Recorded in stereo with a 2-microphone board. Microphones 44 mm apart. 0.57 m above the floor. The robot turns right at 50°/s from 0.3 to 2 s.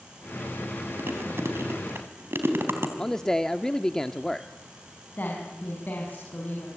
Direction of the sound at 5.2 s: 45° left (ahead or behind).